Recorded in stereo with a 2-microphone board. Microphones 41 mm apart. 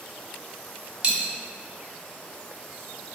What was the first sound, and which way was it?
A dropped coin, 25° right (ahead or behind).